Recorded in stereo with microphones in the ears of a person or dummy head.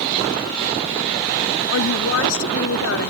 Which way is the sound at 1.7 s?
80° left.